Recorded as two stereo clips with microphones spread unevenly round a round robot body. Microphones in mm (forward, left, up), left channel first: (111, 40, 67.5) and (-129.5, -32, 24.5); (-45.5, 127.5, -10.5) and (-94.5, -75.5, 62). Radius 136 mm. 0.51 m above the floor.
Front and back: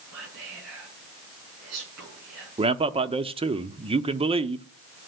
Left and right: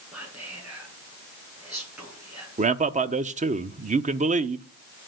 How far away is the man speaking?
About 0.8 m.